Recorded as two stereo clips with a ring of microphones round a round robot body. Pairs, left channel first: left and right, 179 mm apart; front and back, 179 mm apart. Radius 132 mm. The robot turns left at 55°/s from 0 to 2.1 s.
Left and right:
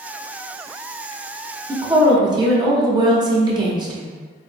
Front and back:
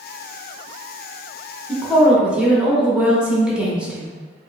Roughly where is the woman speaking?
Right.